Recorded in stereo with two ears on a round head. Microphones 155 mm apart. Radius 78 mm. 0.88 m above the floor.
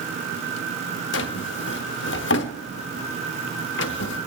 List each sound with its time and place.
1.1 s a drawer: 75° left (ahead or behind), 1.0 m